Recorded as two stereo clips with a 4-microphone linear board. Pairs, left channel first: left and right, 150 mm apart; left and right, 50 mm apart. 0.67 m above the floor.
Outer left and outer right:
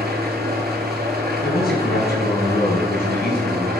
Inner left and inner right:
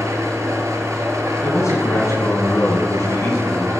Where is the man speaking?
75° left (ahead or behind), 5.5 m.